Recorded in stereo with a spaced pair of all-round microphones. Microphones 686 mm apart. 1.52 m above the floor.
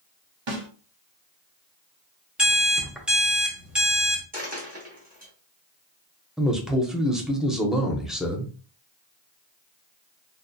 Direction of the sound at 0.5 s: 45° right (ahead or behind).